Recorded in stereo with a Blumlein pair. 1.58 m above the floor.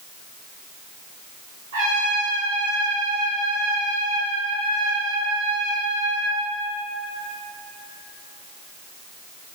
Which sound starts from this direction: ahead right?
A trumpet, at 1.7 s.